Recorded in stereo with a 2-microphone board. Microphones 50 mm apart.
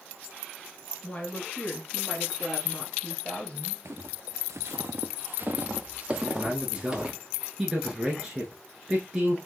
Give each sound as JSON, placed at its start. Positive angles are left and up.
{"t": 1.0, "sound": "a woman speaking", "side_deg": 20, "distance_m": 1.5}
{"t": 3.9, "sound": "footsteps", "side_deg": -65, "distance_m": 0.9}
{"t": 6.1, "sound": "a man speaking", "side_deg": -15, "distance_m": 1.1}